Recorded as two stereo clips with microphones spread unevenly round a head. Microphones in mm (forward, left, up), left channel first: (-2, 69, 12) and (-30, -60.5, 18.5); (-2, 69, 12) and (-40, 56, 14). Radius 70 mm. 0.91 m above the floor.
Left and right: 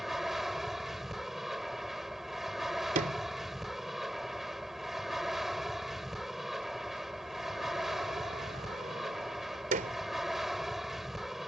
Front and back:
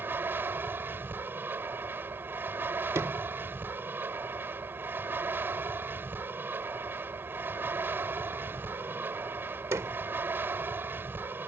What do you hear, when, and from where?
0.0 s an aircraft: 170° left
3.0 s a sliding door: 130° right